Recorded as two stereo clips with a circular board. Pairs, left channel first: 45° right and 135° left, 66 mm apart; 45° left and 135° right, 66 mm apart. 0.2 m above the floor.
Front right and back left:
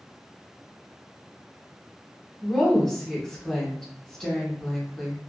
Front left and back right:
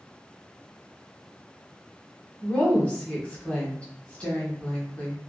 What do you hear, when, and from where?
2.4 s a woman speaking: 25° left, 1.0 m